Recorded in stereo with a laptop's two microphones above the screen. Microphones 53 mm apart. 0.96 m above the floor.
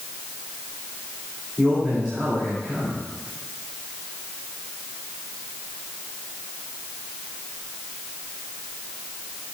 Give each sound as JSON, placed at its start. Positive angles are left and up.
{"t": 1.6, "sound": "a man speaking", "side_deg": 10, "distance_m": 2.0}